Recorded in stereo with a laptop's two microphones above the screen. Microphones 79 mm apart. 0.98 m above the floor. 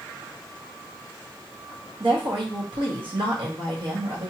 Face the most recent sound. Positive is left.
turn(degrees=-70)  # may be behind; listen again after turning